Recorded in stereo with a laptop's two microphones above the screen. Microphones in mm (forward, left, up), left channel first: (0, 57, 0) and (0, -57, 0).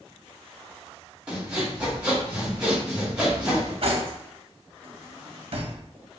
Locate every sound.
1.3 s sawing: 10° right (ahead or behind), 1.6 m
3.8 s cutlery clinking: 55° right (ahead or behind), 0.8 m